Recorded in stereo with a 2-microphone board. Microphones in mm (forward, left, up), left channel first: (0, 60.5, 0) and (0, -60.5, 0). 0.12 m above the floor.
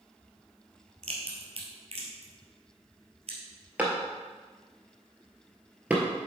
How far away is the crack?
About 2 m.